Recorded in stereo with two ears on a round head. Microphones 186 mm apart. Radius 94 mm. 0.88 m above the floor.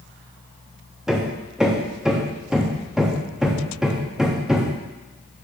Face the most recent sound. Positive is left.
turn(degrees=-5)  # may be behind; listen again after turning